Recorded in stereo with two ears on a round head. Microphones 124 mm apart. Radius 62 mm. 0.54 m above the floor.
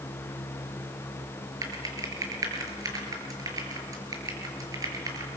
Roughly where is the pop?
No pop in this recording.